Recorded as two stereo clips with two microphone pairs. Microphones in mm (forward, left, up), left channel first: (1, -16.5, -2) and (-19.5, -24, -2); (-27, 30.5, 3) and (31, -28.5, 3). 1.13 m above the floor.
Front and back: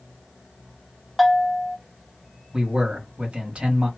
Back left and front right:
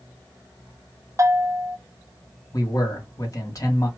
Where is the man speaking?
Straight behind, 1.6 m.